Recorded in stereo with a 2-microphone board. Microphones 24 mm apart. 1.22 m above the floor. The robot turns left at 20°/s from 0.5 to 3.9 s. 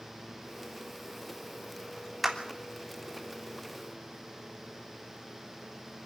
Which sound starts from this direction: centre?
A clap, at 2.2 s.